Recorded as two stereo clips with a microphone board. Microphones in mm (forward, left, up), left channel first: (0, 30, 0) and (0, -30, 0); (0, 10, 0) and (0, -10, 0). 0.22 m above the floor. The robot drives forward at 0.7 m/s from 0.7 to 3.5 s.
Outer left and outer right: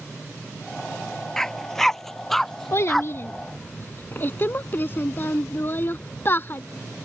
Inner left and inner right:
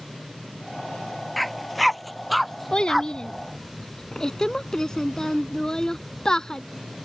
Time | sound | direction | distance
1.4 | a dog barking | 10° left (ahead or behind) | ?
2.7 | a child speaking | 55° left (ahead or behind) | ?